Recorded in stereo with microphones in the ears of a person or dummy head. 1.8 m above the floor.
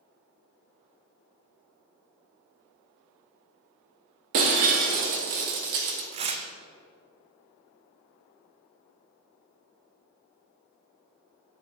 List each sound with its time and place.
4.3 s breaking glass: 40° right (ahead or behind), 1.4 m
6.1 s tearing paper: 30° right (ahead or behind), 0.6 m